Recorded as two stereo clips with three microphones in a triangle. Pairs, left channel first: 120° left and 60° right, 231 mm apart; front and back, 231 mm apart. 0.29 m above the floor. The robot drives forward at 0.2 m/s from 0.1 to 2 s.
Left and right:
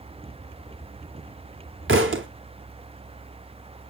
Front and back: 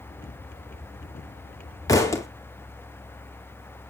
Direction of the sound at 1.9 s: 75° right.